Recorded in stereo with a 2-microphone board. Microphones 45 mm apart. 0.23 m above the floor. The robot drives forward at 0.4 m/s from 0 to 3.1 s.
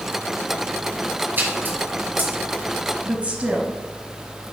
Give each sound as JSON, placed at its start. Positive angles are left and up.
{"t": 1.4, "sound": "a splash", "side_deg": -45, "distance_m": 1.9}
{"t": 3.0, "sound": "a woman speaking", "side_deg": -30, "distance_m": 1.1}